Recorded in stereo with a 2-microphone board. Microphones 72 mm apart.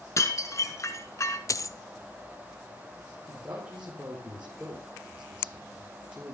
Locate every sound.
0.2 s dishes clattering: 45° left (ahead or behind), 1.6 m
1.5 s a dropped coin: 50° left (ahead or behind), 0.6 m
3.3 s a man speaking: 20° right (ahead or behind), 4 m